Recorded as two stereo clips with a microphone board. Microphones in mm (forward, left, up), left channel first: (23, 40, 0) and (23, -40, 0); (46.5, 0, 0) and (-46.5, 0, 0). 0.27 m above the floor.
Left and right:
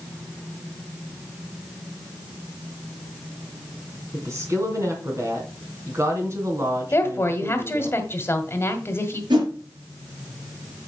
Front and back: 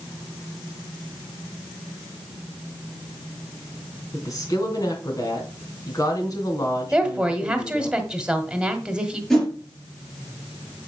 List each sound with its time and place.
4.1 s a woman speaking: 45° right, 3 m
6.9 s a woman speaking: 105° left, 1.5 m
9.3 s a whoosh: 85° right, 4 m